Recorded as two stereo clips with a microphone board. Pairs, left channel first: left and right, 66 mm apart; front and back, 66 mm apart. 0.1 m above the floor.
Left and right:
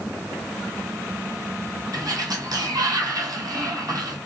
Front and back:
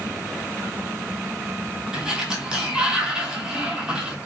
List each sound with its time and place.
1.9 s a sliding door: 105° right, 0.8 m